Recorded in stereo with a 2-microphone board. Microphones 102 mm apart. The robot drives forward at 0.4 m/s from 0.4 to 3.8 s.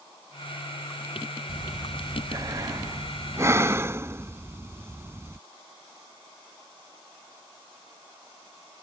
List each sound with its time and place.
1.5 s breathing: 50° right (ahead or behind); by 5.4 s 25° right (ahead or behind)